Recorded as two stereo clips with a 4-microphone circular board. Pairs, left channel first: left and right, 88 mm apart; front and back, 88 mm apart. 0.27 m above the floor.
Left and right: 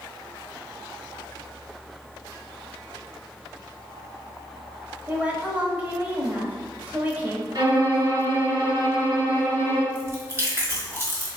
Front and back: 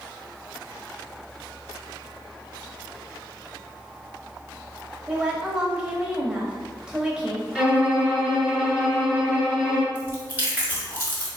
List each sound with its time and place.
5.1 s a woman speaking: 115° right, 0.9 m
7.5 s a violin: 100° right, 1.9 m
9.9 s chewing: 130° right, 1.2 m